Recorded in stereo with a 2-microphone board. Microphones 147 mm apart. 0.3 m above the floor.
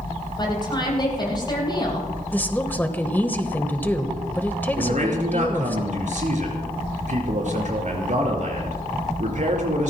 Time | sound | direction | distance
0.4 | a woman speaking | 30° left (ahead or behind) | 9.5 m
2.3 | a woman speaking | 15° left (ahead or behind) | 1.3 m
4.8 | a man speaking | 60° right (ahead or behind) | 5 m